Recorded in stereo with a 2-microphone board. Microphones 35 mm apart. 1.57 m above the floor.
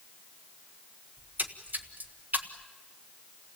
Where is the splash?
55° right (ahead or behind), 1.4 m.